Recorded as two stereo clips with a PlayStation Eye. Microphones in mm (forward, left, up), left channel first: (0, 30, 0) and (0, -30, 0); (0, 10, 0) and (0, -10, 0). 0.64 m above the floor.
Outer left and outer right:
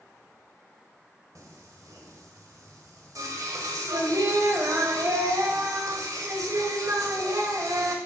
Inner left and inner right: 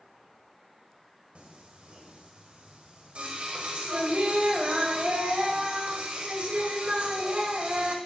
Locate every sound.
1.4 s singing: 70° right (ahead or behind), 1.4 m